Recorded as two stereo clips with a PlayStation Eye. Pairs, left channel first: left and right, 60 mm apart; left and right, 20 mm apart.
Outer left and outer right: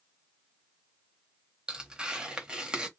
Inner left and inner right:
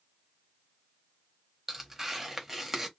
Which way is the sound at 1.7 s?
15° right (ahead or behind).